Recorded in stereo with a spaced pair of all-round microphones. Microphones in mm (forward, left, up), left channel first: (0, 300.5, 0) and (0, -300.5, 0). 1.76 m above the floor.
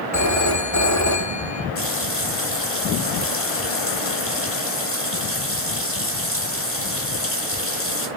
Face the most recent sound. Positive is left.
turn(degrees=20)  # may be behind; listen again after turning